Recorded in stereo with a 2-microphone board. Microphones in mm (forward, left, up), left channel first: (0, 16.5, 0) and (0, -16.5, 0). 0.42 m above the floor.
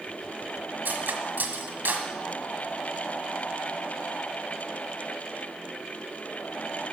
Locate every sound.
0.8 s cutlery clinking: 65° right (ahead or behind), 1.5 m